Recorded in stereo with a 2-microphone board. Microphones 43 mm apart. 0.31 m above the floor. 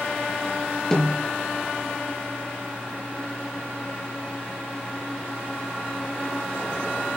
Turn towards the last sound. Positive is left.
turn(degrees=15)  # may be behind; listen again after turning